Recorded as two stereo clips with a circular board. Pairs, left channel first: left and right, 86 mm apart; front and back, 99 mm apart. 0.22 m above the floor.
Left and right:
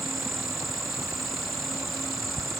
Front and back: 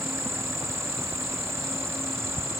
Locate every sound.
0.0 s an insect: straight behind, 1.4 m